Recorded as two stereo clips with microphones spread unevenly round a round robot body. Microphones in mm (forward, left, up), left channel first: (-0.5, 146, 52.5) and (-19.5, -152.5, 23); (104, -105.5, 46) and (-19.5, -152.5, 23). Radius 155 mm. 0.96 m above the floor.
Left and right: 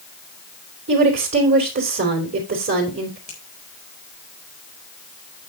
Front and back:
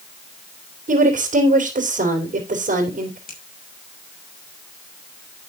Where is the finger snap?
20° left, 4 m.